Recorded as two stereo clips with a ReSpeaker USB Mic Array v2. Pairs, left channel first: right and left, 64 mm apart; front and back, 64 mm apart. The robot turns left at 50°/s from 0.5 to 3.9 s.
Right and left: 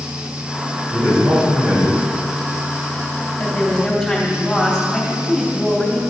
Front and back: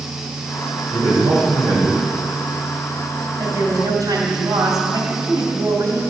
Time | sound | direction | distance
0.9 | a man speaking | 150° right | 3 m
3.4 | a woman speaking | 155° right | 2.5 m